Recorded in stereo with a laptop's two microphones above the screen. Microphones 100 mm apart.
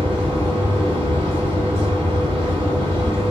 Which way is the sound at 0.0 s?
65° right (ahead or behind).